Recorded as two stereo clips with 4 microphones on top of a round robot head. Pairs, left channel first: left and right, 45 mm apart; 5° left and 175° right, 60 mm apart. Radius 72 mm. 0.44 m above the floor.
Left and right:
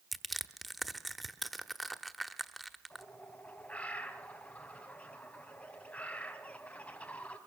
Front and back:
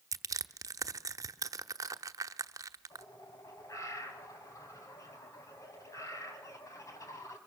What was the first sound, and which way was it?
Crushing, straight behind.